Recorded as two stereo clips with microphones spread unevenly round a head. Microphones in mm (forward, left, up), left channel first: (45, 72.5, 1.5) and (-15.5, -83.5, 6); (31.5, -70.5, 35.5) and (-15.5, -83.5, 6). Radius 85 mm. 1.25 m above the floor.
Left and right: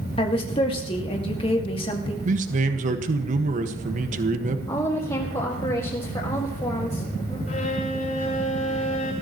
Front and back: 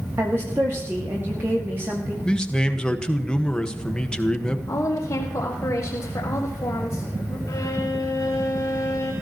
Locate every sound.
0.2 s a woman speaking: 130° left, 2 m
2.2 s a man speaking: 65° right, 1.6 m
4.7 s a woman speaking: 10° left, 4 m
7.5 s a violin: 25° left, 6.5 m